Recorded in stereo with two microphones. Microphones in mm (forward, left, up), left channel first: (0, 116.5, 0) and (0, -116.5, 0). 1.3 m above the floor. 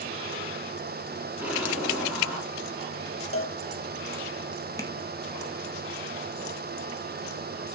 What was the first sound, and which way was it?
An explosion, 10° right (ahead or behind).